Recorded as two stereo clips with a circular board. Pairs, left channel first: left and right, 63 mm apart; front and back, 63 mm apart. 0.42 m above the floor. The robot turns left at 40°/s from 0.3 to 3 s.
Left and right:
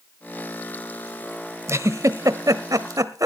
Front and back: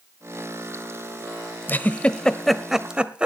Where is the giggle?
55° right, 0.9 m; by 3.3 s 105° right, 0.9 m.